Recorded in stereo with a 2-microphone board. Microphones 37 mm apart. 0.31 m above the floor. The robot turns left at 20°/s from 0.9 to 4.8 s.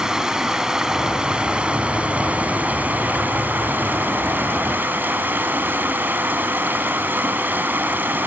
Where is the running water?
20° right, 2 m; by 8.3 s 100° right, 2 m.